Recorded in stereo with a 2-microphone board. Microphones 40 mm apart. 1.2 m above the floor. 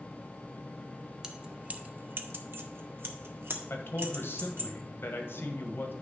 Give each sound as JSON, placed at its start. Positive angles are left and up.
{"t": 1.2, "sound": "keys jangling", "side_deg": -15, "distance_m": 0.8}
{"t": 3.7, "sound": "a man speaking", "side_deg": 65, "distance_m": 1.4}